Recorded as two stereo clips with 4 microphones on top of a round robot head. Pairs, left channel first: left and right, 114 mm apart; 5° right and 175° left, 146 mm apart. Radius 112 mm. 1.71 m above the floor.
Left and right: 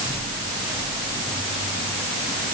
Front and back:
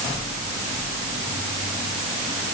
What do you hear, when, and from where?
Only background noise.